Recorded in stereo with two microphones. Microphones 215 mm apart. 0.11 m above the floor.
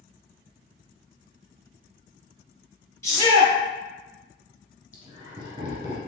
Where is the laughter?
25° right (ahead or behind), 1.4 m.